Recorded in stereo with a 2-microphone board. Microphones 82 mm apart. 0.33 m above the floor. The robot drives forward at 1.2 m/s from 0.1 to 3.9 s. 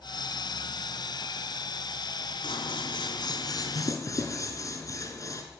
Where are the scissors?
70° left (ahead or behind), 1.4 m; by 5.4 s 40° left (ahead or behind), 2.0 m.